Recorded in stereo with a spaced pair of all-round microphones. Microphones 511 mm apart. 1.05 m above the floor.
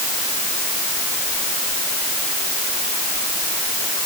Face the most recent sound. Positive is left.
No sound to turn to.